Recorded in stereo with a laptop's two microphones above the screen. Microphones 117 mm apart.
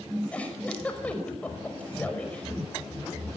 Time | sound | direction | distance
0.3 | a giggle | 10° left (ahead or behind) | 5 m